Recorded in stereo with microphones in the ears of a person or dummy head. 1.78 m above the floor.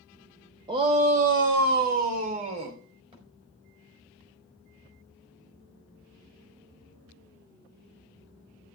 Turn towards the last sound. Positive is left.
turn(degrees=-30)  # may be behind; listen again after turning